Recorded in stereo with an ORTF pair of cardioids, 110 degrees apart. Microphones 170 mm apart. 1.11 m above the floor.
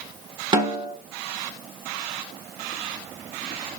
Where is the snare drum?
30° right, 1.7 m.